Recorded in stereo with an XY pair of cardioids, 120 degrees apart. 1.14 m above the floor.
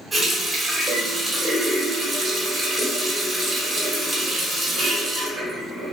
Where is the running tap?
25° right, 1.1 m.